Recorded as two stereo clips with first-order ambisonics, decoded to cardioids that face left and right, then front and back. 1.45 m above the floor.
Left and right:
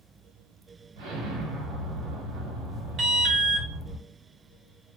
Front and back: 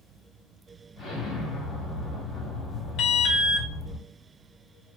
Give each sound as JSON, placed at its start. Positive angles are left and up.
{"t": 1.0, "sound": "an explosion", "azimuth_deg": -70, "distance_m": 1.5}
{"t": 3.0, "sound": "an alarm", "azimuth_deg": -40, "distance_m": 0.8}